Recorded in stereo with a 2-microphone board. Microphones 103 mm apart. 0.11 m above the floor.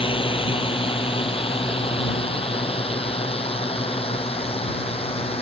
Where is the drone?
60° left (ahead or behind); by 5.4 s 70° left (ahead or behind).